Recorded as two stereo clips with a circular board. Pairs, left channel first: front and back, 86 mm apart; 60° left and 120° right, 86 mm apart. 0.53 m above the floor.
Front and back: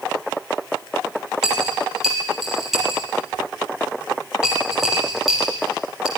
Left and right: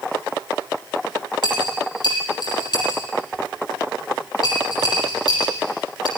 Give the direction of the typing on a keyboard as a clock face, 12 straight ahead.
No typing on a keyboard in this recording.